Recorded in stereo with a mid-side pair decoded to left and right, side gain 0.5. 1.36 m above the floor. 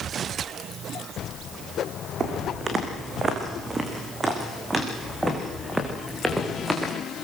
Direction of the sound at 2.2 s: 45° right.